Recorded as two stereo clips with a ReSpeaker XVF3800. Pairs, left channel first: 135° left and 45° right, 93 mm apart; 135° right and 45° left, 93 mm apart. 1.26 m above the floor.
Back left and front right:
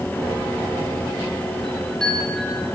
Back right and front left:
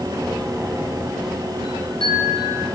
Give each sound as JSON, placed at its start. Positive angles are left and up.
{"t": 1.6, "sound": "a chime", "azimuth_deg": -145, "distance_m": 9.0}